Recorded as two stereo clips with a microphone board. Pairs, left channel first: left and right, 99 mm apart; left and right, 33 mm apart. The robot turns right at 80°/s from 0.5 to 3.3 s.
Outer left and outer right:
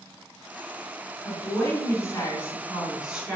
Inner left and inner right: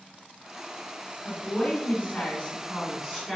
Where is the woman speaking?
45° left, 1.6 m; by 3.4 s 150° right, 1.6 m.